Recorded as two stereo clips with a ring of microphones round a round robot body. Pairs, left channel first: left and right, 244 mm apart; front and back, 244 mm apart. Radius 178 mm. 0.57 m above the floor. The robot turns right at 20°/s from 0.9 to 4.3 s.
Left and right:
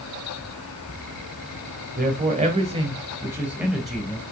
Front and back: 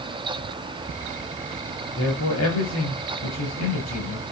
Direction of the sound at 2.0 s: 40° right.